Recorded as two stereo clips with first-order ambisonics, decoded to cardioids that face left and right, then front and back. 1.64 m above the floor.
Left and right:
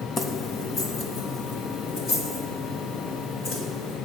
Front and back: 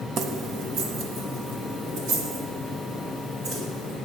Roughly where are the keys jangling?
Behind left.